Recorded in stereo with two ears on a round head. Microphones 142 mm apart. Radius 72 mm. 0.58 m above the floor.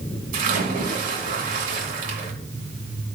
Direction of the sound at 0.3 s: 60° right (ahead or behind).